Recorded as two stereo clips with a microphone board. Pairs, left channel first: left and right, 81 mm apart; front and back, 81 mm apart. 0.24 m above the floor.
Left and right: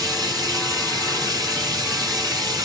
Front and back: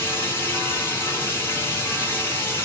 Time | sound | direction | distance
0.0 | running water | 60° right | 1.3 m